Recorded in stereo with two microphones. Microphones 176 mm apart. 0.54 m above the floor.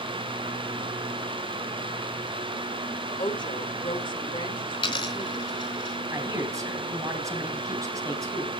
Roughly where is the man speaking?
Centre.